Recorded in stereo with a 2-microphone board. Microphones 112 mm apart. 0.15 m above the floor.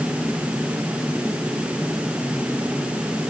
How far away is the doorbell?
No doorbell in this recording.